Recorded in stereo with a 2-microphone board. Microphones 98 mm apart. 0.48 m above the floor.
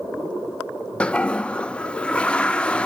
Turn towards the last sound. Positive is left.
turn(degrees=10)  # may be behind; listen again after turning